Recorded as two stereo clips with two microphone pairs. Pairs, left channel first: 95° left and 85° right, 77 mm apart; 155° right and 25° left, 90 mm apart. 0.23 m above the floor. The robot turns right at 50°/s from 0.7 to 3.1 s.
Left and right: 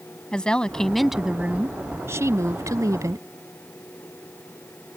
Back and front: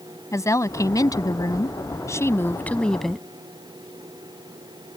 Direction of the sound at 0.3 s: 170° left.